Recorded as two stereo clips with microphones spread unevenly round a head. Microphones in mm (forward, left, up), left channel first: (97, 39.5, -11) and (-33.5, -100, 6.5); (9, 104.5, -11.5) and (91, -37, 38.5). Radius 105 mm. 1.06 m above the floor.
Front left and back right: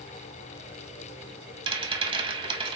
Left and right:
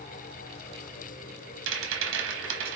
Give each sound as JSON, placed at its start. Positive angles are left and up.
{"t": 1.7, "sound": "a rattle", "azimuth_deg": -70, "distance_m": 1.1}